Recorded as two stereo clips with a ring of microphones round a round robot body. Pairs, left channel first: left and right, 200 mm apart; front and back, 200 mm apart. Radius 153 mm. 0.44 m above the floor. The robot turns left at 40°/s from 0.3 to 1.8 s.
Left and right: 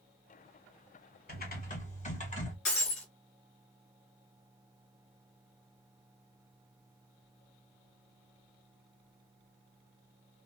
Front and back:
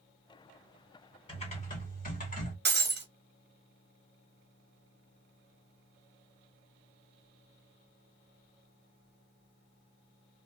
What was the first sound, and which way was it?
Typing on a keyboard, 60° left.